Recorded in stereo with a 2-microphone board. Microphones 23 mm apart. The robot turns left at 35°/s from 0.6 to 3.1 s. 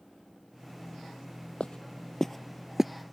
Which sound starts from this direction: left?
Footsteps, at 1.6 s.